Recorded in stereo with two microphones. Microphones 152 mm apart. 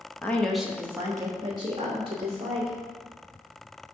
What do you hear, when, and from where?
0.2 s a woman speaking: 15° left (ahead or behind), 0.6 m; by 2.8 s 45° right (ahead or behind), 1.5 m